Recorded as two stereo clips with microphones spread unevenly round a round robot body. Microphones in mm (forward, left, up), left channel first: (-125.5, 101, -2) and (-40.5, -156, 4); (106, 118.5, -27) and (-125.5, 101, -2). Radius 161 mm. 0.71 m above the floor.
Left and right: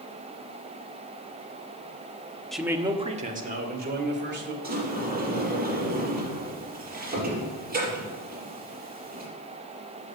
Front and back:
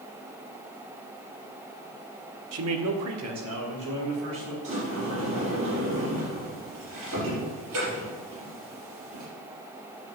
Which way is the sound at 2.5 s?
165° right.